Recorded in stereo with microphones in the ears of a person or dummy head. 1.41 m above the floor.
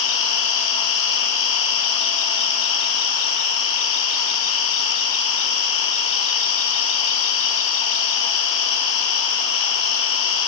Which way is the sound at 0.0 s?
70° left (ahead or behind).